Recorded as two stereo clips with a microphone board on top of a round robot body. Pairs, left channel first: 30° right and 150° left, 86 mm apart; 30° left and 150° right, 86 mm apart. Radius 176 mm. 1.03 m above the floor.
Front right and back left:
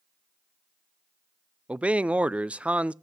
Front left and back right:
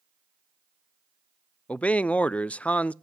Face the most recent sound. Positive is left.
turn(degrees=90)